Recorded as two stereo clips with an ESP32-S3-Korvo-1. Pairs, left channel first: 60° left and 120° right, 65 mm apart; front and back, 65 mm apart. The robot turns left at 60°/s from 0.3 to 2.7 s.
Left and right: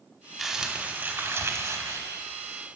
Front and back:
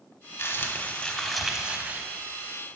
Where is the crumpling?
30° right, 1.0 m; by 2.0 s 130° right, 1.0 m.